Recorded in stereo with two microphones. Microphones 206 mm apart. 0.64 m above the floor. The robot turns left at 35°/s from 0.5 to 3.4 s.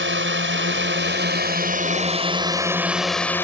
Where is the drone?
90° right; by 3.4 s 170° left.